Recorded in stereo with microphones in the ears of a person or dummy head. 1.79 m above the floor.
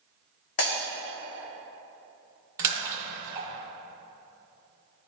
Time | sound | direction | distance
0.6 | breaking glass | 55° left (ahead or behind) | 2.5 m
2.6 | a splash | 15° right (ahead or behind) | 1.7 m